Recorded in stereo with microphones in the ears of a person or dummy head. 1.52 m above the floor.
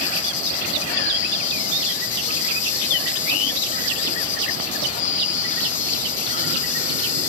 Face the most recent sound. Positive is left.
turn(degrees=40)  # may be behind; listen again after turning